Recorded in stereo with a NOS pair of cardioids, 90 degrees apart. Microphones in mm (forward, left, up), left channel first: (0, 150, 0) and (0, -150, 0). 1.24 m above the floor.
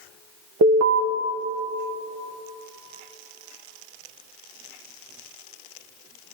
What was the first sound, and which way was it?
An alarm, 55° right.